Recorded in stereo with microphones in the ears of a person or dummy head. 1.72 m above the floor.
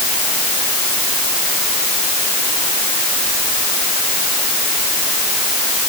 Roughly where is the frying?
I don't hear frying.